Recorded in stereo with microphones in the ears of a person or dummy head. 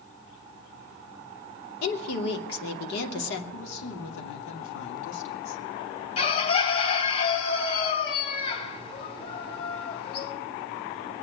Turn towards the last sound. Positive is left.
turn(degrees=40)  # may be behind; listen again after turning